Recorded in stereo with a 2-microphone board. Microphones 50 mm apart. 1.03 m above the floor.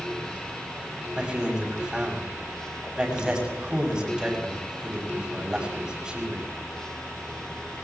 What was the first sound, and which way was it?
A man speaking, 15° right (ahead or behind).